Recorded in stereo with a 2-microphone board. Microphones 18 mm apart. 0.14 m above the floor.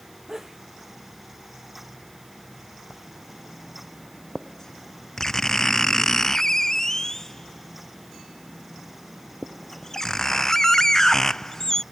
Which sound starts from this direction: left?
Writing, at 2.9 s.